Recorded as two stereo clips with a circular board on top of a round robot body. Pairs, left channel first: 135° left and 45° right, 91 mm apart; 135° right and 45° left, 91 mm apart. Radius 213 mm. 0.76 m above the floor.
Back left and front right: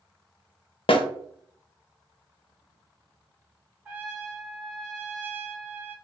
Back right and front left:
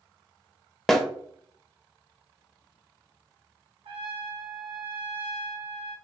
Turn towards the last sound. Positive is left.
turn(degrees=25)